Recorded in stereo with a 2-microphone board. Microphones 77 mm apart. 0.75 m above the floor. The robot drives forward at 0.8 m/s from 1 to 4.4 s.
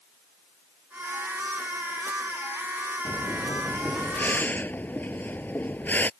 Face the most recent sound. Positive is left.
turn(degrees=25)  # may be behind; listen again after turning